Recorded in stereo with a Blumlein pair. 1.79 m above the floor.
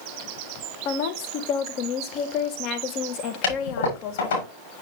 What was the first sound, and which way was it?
A woman speaking, 40° left.